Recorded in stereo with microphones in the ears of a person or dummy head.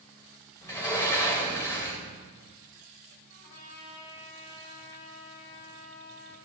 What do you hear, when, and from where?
0.6 s a sliding door: 10° left (ahead or behind), 2 m
3.3 s a trumpet: 60° left (ahead or behind), 2.5 m